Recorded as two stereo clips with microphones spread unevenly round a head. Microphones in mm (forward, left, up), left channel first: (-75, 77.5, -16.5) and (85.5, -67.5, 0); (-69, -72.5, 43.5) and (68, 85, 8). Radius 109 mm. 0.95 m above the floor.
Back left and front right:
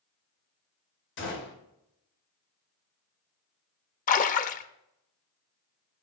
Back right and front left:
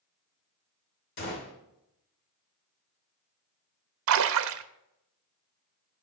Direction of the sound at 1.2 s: Straight behind.